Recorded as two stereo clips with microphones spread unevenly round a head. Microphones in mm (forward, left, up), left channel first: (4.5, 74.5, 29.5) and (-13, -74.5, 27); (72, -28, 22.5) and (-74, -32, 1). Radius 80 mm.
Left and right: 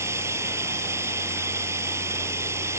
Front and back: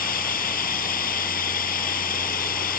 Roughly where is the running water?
Ahead right.